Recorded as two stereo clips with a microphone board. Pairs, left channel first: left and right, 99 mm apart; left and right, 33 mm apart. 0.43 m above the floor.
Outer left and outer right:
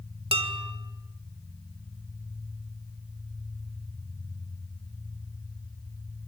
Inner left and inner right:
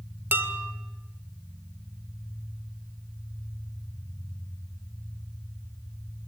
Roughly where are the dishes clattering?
Right.